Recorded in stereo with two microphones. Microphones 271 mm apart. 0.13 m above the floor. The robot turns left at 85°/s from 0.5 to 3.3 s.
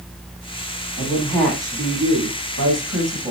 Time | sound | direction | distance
1.0 | a woman speaking | 45° left | 7 m